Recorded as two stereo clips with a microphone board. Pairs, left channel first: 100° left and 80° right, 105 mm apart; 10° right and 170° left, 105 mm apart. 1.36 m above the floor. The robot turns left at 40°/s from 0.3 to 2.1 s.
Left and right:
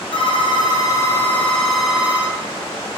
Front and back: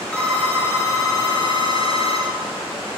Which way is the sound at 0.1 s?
70° left.